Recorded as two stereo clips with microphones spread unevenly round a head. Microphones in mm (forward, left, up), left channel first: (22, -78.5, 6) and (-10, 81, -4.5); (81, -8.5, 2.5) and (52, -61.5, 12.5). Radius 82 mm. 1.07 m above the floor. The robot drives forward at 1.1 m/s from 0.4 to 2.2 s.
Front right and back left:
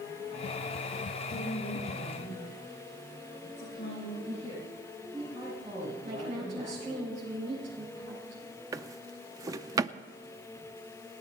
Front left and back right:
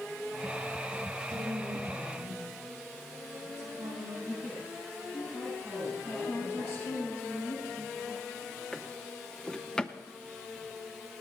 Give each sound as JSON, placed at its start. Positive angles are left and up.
{"t": 1.3, "sound": "a woman speaking", "azimuth_deg": -115, "distance_m": 9.0}
{"t": 4.2, "sound": "a woman speaking", "azimuth_deg": 160, "distance_m": 8.0}
{"t": 6.0, "sound": "a woman speaking", "azimuth_deg": 145, "distance_m": 9.0}
{"t": 8.7, "sound": "a drawer", "azimuth_deg": 155, "distance_m": 0.5}